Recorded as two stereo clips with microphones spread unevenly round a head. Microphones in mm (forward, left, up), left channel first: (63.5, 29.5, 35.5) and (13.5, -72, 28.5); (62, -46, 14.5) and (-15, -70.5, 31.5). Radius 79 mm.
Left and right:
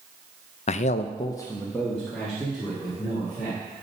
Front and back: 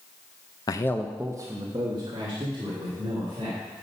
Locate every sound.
0.7 s a man speaking: 50° left, 0.5 m; by 3.6 s 160° left, 3 m